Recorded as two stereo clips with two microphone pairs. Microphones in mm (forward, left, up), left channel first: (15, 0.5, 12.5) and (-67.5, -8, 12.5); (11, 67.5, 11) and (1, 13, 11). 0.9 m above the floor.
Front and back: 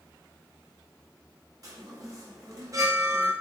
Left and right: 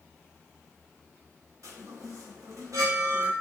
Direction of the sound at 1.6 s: 125° right.